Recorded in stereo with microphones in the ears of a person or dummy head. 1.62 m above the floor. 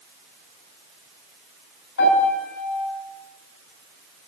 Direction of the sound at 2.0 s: 75° left (ahead or behind).